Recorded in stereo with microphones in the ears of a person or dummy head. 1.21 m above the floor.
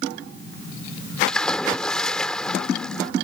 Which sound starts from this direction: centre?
A splash, at 1.3 s.